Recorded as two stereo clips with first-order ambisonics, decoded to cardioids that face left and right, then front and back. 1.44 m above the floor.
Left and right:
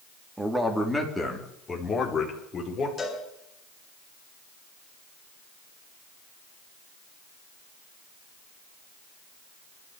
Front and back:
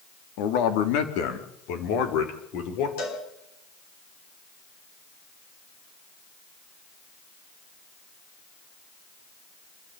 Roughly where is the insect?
No insect in this recording.